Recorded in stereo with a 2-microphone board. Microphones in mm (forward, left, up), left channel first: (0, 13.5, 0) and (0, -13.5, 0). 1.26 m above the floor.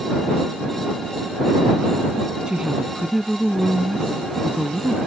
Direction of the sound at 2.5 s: 30° right (ahead or behind).